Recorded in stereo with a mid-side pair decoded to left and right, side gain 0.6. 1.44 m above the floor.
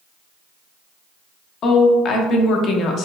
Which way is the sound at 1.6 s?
50° left.